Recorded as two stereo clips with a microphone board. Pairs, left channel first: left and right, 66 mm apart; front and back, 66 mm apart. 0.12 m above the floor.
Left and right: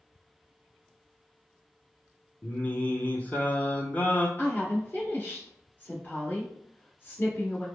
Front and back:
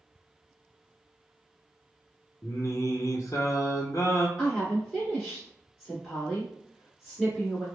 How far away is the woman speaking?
About 1.5 m.